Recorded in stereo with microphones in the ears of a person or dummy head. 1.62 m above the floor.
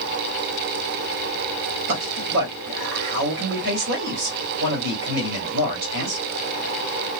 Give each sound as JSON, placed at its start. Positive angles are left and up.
{"t": 1.9, "sound": "a man speaking", "side_deg": -65, "distance_m": 1.3}